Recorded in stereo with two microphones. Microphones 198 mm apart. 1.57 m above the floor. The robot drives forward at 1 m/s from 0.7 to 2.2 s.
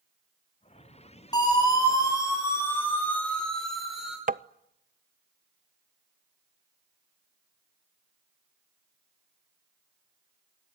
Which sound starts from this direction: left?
A siren, at 1.3 s.